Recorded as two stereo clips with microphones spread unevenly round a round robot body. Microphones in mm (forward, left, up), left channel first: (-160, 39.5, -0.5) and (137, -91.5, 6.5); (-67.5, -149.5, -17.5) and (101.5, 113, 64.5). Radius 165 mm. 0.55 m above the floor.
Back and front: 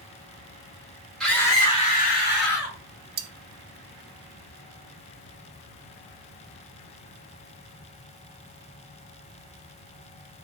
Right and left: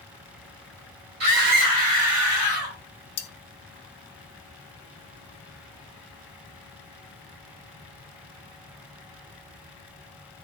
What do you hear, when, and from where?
1.2 s a scream: 70° left, 1.3 m; by 2.8 s 110° left, 1.6 m
3.2 s cutlery clinking: 75° right, 0.5 m